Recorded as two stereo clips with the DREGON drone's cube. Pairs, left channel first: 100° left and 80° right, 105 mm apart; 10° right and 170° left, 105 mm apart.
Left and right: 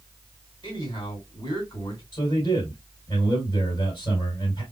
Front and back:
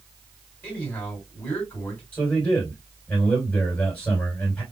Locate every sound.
0.6 s a man speaking: 50° left, 2.5 m
2.1 s a man speaking: 50° left, 2.5 m